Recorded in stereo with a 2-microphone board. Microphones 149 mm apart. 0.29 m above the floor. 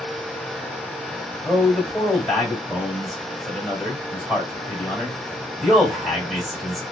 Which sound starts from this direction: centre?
A man speaking, at 1.4 s.